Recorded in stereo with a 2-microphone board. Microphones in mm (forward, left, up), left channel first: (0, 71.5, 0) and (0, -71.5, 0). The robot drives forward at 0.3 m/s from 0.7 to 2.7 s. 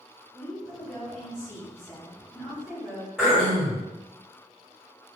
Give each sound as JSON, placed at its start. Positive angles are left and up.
{"t": 0.3, "sound": "a woman speaking", "side_deg": 5, "distance_m": 1.5}
{"t": 3.2, "sound": "throat clearing", "side_deg": -5, "distance_m": 1.3}